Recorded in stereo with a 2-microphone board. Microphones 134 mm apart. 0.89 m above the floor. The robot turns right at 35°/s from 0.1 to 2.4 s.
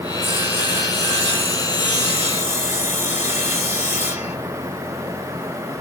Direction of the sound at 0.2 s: 25° right.